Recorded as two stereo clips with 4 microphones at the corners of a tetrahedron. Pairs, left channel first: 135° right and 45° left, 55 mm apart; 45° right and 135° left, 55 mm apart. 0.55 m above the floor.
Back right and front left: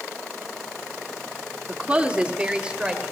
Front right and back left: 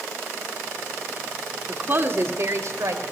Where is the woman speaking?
100° left, 1.3 m; by 3.1 s 120° left, 2.5 m.